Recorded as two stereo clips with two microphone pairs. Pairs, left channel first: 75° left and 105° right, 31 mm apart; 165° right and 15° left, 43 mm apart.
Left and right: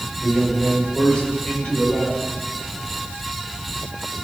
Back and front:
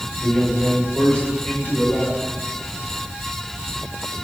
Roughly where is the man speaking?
Behind left.